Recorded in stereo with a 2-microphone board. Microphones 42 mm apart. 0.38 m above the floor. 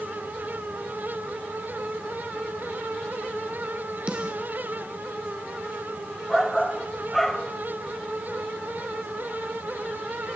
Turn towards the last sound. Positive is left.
turn(degrees=5)  # may be behind; listen again after turning